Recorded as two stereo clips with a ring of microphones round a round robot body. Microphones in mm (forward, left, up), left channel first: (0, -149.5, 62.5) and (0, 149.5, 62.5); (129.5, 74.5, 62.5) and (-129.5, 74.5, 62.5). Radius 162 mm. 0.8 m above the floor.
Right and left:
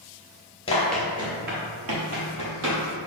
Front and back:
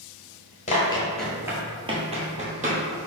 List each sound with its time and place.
0.7 s running footsteps: 35° right, 0.8 m; by 2.8 s 120° left, 1.8 m